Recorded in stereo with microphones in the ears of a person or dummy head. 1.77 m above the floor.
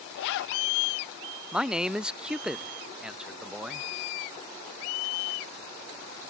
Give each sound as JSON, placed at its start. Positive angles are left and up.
{"t": 0.1, "sound": "a zipper", "side_deg": 55}
{"t": 1.5, "sound": "a man speaking", "side_deg": -10}